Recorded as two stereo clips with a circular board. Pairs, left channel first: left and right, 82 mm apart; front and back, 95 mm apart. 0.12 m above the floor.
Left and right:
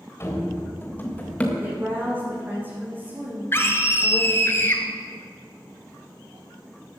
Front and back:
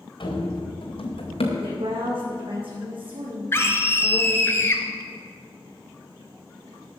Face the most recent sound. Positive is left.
turn(degrees=50)